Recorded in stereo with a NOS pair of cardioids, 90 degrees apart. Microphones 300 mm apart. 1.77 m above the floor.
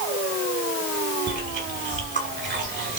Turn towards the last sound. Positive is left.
turn(degrees=-40)